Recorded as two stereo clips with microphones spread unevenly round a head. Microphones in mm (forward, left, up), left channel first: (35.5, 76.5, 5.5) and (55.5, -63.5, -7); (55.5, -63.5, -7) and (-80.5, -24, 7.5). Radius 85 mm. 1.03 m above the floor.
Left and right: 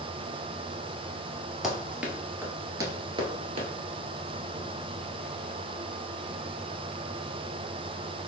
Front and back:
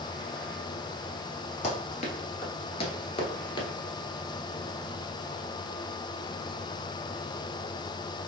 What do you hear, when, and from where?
1.6 s running footsteps: 10° left, 1.3 m; by 3.7 s 65° right, 1.2 m